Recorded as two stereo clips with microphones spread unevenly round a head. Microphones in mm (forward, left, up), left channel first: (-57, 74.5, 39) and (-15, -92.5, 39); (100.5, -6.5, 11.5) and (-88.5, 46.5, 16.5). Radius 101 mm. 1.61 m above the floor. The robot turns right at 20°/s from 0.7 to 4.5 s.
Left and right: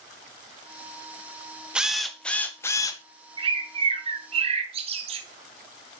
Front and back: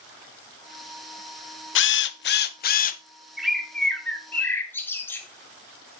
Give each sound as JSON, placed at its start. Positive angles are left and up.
{"t": 1.8, "sound": "a drill", "azimuth_deg": 10, "distance_m": 0.6}
{"t": 3.4, "sound": "a bird", "azimuth_deg": -110, "distance_m": 0.8}